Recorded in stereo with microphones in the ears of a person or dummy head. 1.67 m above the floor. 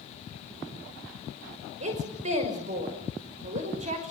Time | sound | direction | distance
1.8 | a woman speaking | 45° right (ahead or behind) | 5.5 m